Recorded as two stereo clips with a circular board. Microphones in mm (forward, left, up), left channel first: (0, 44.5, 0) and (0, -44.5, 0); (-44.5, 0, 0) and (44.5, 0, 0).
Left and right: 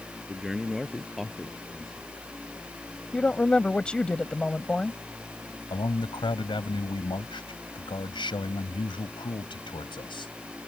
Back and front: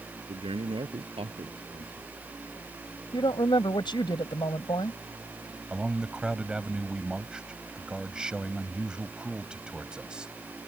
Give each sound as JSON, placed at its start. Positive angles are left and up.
{"t": 0.3, "sound": "a man speaking", "azimuth_deg": -5}
{"t": 3.1, "sound": "a woman speaking", "azimuth_deg": 165}
{"t": 5.7, "sound": "a man speaking", "azimuth_deg": 80}